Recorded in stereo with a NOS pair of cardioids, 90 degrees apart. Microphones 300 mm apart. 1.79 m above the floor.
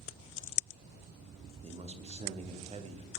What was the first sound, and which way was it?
A man speaking, 20° right.